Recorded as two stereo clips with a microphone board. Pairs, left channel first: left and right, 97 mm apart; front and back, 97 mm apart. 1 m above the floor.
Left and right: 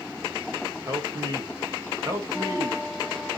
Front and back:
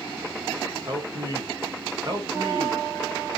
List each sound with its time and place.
0.9 s a man speaking: 140° right, 1.2 m